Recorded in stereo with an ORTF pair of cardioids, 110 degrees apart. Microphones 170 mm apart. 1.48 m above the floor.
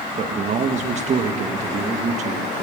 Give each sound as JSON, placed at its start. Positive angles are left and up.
{"t": 0.2, "sound": "a man speaking", "azimuth_deg": -45, "distance_m": 1.8}